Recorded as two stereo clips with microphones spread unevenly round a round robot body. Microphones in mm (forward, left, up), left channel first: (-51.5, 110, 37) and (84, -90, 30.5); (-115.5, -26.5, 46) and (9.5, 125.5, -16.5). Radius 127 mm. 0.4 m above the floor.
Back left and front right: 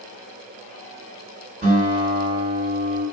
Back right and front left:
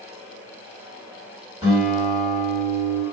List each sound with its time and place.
1.6 s a guitar: 20° right, 1.9 m